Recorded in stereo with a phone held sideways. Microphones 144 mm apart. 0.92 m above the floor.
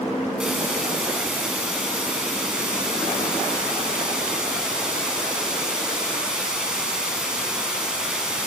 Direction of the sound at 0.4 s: 5° right (ahead or behind).